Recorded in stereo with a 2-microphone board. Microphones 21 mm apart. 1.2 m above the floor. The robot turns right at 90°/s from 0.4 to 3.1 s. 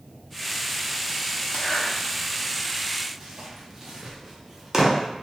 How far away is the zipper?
About 0.6 m.